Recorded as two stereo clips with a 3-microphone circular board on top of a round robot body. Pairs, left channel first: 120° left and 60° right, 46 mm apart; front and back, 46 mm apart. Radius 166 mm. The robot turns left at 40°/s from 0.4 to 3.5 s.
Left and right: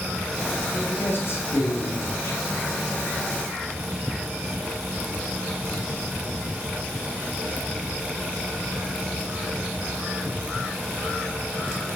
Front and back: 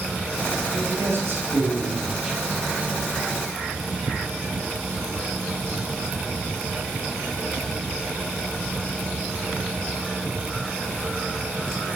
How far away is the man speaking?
About 3 m.